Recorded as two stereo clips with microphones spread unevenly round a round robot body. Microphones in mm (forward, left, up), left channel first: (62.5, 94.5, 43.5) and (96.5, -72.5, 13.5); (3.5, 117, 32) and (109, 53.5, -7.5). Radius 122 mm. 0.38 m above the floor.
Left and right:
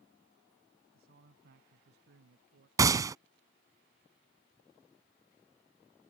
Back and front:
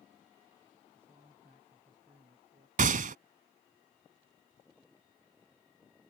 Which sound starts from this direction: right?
A man speaking, at 0.9 s.